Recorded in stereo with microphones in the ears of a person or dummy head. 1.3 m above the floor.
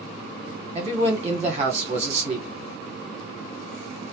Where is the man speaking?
30° right (ahead or behind), 1.1 m.